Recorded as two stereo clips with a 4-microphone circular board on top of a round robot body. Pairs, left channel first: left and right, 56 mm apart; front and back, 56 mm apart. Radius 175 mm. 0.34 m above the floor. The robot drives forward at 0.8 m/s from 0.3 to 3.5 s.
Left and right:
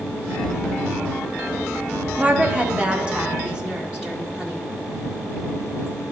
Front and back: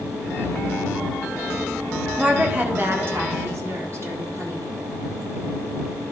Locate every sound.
2.2 s a woman speaking: 120° right, 1.1 m; by 4.7 s 165° right, 1.7 m